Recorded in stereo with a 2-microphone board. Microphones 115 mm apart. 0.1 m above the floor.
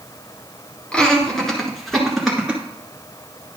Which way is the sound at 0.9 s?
10° left (ahead or behind).